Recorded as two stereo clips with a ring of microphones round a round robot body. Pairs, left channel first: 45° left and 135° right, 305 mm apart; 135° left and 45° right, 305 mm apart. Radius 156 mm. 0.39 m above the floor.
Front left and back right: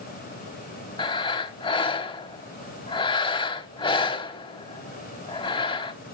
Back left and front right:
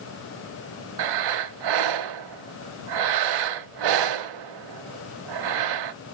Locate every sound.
1.0 s breathing: 30° right, 0.7 m